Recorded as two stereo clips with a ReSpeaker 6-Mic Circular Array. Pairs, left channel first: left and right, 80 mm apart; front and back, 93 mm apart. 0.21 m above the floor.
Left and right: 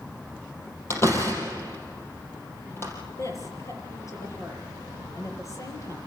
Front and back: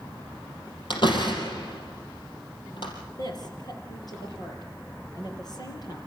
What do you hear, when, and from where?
0.9 s a door slam: 30° left, 4.5 m
3.2 s a woman speaking: 45° left, 5 m